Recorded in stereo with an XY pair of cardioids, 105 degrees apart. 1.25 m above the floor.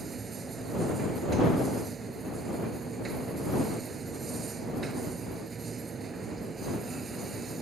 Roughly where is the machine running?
Ahead right.